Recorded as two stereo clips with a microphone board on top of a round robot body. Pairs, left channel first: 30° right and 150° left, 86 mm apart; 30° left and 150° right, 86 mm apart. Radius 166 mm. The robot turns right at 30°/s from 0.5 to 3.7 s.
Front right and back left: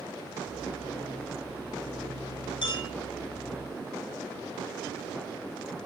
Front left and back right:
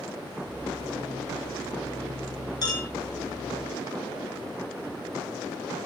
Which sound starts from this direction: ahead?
A clink, at 2.6 s.